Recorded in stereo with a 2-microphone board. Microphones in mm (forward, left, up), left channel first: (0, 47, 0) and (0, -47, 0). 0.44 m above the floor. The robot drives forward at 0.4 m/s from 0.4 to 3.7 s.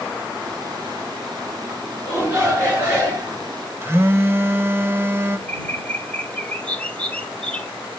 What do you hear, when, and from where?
2.0 s a shout: 25° right (ahead or behind), 5.5 m
3.8 s a phone buzzing: 25° right (ahead or behind), 0.6 m
5.5 s a bird: 15° left (ahead or behind), 0.7 m